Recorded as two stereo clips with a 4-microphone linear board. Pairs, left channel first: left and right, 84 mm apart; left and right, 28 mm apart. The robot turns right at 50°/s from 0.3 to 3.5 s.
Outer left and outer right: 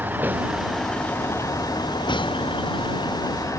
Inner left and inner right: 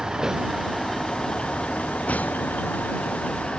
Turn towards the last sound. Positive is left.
turn(degrees=140)